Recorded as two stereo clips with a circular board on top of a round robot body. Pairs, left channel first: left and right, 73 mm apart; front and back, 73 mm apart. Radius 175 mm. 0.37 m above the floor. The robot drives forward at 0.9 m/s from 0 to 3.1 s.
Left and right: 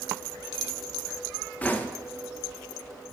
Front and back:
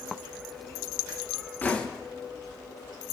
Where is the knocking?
45° left, 1.2 m; by 1.9 s 65° left, 1.2 m.